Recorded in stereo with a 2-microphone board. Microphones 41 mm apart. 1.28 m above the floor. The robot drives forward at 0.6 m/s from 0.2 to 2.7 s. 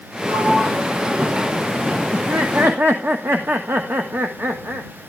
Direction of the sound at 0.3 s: 45° right (ahead or behind).